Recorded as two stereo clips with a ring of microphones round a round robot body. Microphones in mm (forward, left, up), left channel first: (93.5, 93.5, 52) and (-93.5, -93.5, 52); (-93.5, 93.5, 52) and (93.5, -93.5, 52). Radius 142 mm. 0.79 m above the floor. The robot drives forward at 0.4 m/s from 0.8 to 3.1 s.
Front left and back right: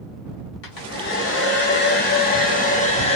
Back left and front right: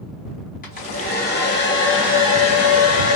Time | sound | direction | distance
0.6 | a hair dryer | 75° left | 1.8 m